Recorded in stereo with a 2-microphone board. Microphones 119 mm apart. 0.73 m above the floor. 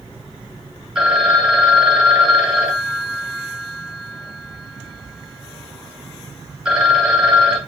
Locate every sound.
0.9 s a phone ringing: 5° right (ahead or behind), 3 m